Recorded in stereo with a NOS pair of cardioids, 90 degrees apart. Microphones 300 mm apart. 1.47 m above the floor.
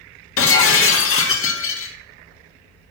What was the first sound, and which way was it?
Breaking glass, 45° left.